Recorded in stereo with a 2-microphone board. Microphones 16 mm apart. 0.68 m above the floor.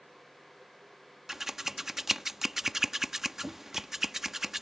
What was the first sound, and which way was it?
Scissors, 25° right (ahead or behind).